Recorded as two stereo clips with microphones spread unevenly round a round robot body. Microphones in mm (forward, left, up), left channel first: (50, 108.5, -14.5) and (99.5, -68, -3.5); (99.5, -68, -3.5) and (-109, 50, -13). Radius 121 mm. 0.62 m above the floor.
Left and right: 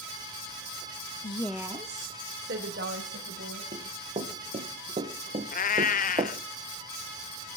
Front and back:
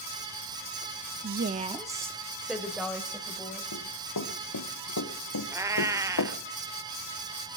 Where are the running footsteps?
25° right, 3.5 m; by 6.4 s 15° right, 1.7 m.